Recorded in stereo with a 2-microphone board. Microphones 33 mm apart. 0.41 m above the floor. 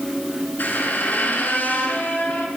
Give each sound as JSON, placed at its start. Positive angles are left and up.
{"t": 0.6, "sound": "a squeak", "side_deg": 70, "distance_m": 1.8}